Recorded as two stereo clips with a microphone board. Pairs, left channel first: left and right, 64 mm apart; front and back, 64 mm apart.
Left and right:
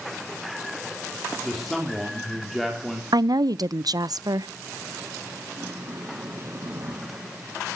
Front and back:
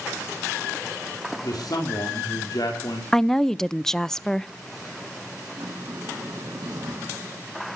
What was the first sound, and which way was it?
A man speaking, straight ahead.